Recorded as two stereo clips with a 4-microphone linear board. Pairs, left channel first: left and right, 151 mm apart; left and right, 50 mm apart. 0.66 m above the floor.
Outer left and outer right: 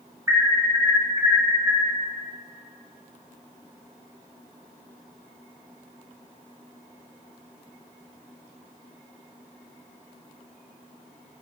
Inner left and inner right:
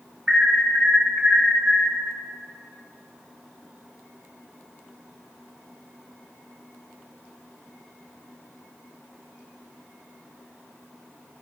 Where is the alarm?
20° right (ahead or behind), 3.5 m.